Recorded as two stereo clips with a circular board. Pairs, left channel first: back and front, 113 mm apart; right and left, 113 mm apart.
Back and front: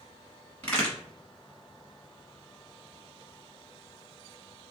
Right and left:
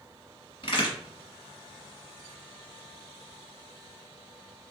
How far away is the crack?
About 1.3 m.